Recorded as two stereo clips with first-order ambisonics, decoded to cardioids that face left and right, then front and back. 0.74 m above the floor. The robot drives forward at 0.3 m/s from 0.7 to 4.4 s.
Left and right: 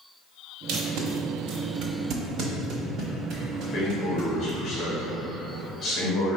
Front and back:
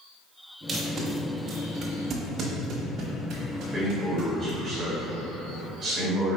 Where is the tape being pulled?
100° right, 0.9 m; by 4.5 s 145° right, 1.6 m.